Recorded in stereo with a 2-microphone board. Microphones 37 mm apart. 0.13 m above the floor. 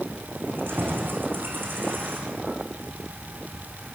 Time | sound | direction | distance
0.5 | keys jangling | 75° right (ahead or behind) | 7 m